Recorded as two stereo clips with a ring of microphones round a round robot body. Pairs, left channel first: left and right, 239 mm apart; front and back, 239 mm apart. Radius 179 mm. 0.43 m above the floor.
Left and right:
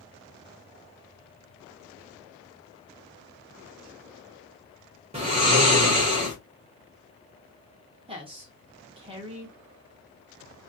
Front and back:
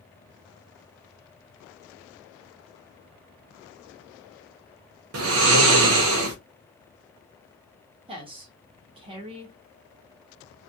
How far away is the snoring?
About 0.7 m.